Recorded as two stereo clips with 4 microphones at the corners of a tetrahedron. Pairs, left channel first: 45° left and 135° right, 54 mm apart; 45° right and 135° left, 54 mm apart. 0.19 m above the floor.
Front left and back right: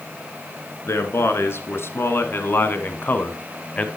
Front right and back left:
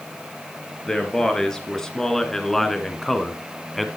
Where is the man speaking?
30° left, 2.5 m; by 3.9 s 45° left, 1.1 m.